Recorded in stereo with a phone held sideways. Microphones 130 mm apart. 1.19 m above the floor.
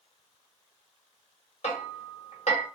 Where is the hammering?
55° left (ahead or behind), 0.9 m.